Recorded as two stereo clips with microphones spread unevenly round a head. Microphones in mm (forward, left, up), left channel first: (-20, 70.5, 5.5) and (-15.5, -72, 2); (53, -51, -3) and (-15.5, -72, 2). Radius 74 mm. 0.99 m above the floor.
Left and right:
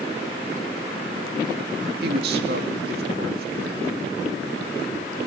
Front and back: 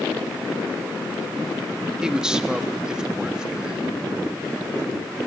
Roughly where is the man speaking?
Right.